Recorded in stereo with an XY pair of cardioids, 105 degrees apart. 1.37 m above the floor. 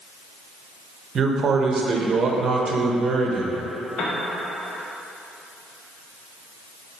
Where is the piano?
60° left, 1.3 m.